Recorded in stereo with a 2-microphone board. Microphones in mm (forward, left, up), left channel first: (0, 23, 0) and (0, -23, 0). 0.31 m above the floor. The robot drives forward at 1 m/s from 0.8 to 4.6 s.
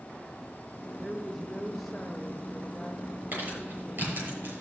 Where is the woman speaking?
5° left (ahead or behind), 1.1 m; by 4.3 s centre (ahead or behind), 3 m.